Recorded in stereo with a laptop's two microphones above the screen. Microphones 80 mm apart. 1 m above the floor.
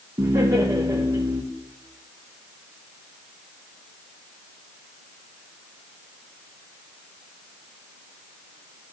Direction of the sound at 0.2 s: 45° right (ahead or behind).